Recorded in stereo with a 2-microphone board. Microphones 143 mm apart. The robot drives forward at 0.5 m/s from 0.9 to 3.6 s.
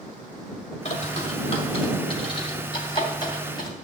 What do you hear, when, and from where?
0.8 s a bird: 50° left (ahead or behind), 1.8 m; by 3.7 s 30° left (ahead or behind), 3 m